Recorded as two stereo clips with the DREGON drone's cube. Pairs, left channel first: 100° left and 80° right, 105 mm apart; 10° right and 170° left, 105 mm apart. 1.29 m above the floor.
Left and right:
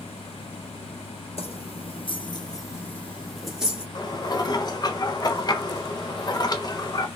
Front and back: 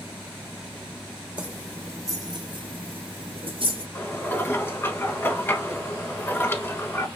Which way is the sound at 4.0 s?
55° left.